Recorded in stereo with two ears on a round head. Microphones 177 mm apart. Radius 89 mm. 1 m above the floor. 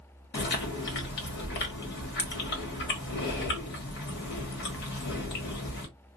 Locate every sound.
0.3 s chewing: 55° left (ahead or behind), 1.5 m